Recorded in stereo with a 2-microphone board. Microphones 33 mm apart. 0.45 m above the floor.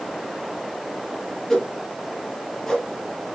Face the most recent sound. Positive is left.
turn(degrees=15)  # may be behind; listen again after turning